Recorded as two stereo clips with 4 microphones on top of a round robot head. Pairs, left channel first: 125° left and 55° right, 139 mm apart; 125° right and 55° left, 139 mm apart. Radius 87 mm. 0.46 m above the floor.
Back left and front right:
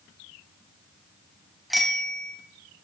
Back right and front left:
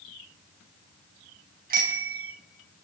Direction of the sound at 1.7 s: 35° left.